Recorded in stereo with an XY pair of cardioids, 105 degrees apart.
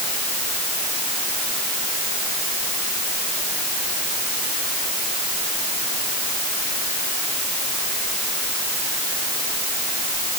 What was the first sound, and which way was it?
Only background noise.